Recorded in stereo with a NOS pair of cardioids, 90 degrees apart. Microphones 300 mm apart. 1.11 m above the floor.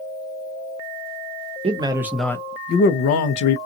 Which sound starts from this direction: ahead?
A man speaking, at 1.6 s.